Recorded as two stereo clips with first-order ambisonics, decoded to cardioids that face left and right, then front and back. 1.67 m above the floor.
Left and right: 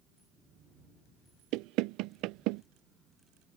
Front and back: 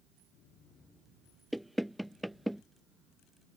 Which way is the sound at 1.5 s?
90° right.